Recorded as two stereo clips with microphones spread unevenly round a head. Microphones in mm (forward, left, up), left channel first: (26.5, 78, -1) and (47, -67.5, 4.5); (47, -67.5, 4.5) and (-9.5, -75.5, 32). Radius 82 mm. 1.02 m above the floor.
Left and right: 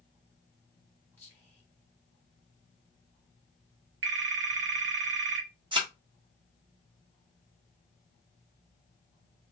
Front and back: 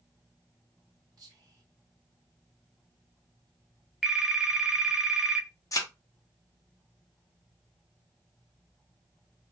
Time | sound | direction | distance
1.2 | whispering | 170° left | 0.6 m
4.0 | a phone ringing | 95° right | 0.7 m
5.7 | a thud | 25° right | 0.9 m